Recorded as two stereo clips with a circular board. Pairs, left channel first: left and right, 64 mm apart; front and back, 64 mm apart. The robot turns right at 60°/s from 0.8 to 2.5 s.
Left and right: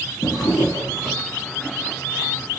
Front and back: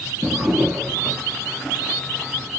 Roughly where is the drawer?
Left.